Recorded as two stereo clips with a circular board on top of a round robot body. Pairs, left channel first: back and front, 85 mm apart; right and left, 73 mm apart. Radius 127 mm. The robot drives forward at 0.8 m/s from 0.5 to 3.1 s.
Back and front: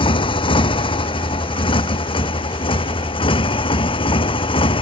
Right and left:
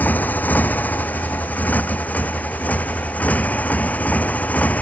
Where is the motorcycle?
160° right.